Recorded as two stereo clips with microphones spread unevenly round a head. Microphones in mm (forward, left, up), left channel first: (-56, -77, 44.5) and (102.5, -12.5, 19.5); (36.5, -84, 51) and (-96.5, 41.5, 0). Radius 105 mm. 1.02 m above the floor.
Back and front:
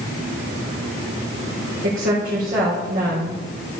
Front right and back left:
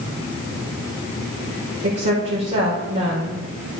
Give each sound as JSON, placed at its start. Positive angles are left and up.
{"t": 1.8, "sound": "a woman speaking", "azimuth_deg": 70, "distance_m": 3.5}